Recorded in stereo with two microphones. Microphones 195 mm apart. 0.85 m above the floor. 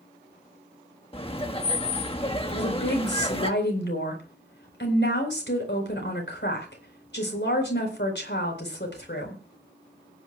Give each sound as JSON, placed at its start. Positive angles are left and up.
{"t": 1.1, "sound": "laughter", "side_deg": 30, "distance_m": 1.3}
{"t": 2.5, "sound": "a woman speaking", "side_deg": 65, "distance_m": 4.0}